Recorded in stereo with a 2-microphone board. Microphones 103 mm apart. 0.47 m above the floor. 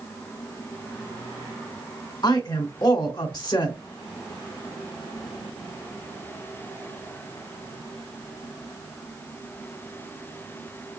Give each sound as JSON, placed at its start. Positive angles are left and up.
{"t": 2.2, "sound": "a woman speaking", "side_deg": 45, "distance_m": 1.2}